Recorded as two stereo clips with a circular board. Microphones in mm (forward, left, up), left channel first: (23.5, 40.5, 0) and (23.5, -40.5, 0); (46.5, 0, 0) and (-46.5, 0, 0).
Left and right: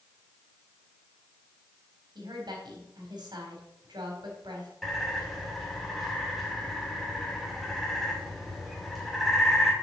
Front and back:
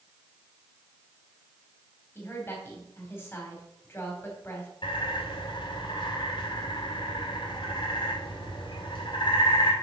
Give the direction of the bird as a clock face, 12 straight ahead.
12 o'clock.